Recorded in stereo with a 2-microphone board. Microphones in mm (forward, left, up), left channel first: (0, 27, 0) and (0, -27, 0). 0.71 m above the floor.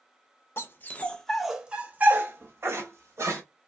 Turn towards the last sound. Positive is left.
turn(degrees=-55)  # may be behind; listen again after turning